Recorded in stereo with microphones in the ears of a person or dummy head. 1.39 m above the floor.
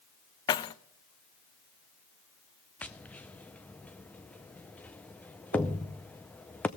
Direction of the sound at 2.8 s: 10° left (ahead or behind).